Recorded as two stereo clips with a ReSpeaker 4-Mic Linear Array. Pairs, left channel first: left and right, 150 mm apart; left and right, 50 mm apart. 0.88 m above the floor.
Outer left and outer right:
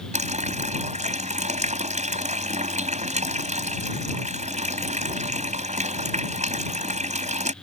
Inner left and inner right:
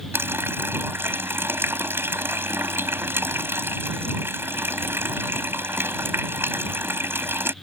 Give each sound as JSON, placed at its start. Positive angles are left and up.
{"t": 0.1, "sound": "a running tap", "side_deg": -50}